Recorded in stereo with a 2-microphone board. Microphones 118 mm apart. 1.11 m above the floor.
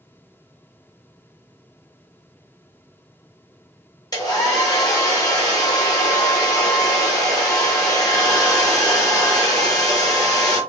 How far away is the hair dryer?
About 1.2 m.